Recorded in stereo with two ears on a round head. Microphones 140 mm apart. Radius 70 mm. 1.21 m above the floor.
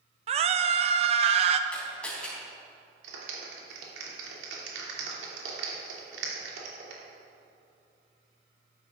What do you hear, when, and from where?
0.3 s a scream: 40° right (ahead or behind), 0.6 m
1.7 s a camera shutter: 5° left (ahead or behind), 3.5 m
3.0 s a clap: 75° right (ahead or behind), 3 m